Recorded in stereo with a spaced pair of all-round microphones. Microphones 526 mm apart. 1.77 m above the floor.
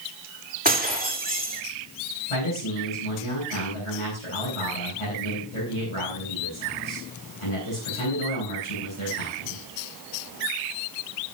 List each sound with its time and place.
0.7 s breaking glass: 15° right (ahead or behind), 3.5 m
2.3 s a man speaking: 70° left (ahead or behind), 9 m